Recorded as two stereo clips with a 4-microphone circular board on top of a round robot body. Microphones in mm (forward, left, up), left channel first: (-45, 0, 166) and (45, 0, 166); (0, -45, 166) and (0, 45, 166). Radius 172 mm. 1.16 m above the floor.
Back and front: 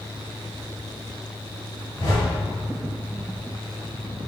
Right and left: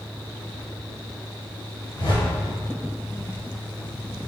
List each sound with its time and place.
2.0 s a whoosh: 140° right, 2 m